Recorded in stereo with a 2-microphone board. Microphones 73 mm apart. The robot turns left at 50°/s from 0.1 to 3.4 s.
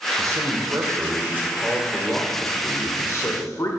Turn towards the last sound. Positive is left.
turn(degrees=110)